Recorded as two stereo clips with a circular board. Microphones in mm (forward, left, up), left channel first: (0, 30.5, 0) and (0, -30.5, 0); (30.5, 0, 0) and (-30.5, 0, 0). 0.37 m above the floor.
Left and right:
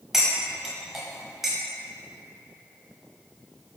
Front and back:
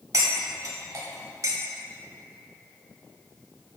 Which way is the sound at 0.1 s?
175° right.